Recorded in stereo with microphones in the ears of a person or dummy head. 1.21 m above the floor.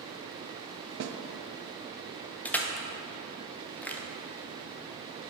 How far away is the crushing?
About 0.6 m.